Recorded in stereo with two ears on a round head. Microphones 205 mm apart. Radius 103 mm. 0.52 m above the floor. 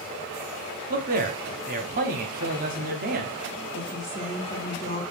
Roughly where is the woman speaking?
Left.